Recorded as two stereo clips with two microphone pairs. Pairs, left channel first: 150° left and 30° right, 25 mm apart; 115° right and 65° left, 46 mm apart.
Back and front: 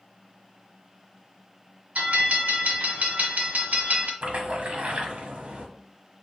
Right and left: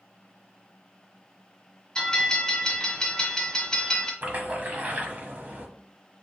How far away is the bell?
About 1.6 m.